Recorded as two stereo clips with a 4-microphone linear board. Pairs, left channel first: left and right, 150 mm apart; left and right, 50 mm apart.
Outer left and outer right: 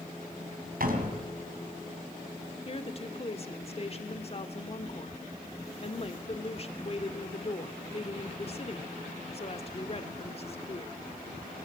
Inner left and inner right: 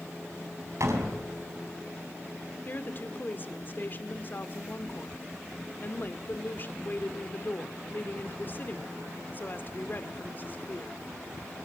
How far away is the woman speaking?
About 1.5 m.